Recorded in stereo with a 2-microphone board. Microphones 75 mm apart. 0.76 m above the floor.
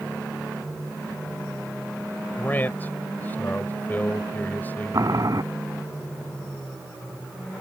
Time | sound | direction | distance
2.4 | a man speaking | 25° left (ahead or behind) | ?
4.9 | boiling | 55° right (ahead or behind) | ?